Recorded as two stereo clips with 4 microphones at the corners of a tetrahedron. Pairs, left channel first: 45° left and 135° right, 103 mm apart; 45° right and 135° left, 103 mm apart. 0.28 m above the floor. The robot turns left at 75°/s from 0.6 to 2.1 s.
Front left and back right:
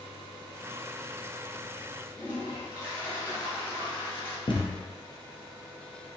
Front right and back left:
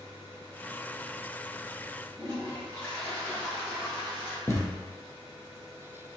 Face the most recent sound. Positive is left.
turn(degrees=15)